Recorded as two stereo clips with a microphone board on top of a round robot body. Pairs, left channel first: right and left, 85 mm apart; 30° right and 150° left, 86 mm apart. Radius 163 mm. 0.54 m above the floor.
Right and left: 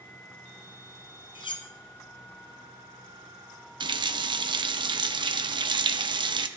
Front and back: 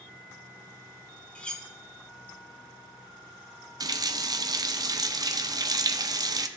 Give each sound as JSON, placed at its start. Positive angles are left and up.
{"t": 1.4, "sound": "cutlery clinking", "azimuth_deg": -105, "distance_m": 0.9}
{"t": 3.8, "sound": "a running tap", "azimuth_deg": 110, "distance_m": 0.6}